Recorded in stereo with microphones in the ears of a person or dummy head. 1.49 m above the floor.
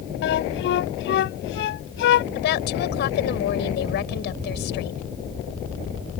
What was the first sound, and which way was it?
A flute, 65° left (ahead or behind).